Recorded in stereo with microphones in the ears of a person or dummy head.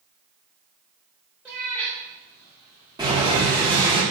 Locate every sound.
1.4 s a cat meowing: 5° right (ahead or behind), 0.7 m; by 3.7 s 25° left (ahead or behind), 1.0 m
3.0 s boiling: 20° right (ahead or behind), 1.5 m